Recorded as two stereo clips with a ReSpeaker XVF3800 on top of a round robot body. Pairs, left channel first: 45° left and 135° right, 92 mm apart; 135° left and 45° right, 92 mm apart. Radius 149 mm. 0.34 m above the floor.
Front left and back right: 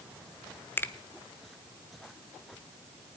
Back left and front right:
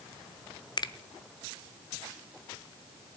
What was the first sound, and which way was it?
A finger snap, 110° left.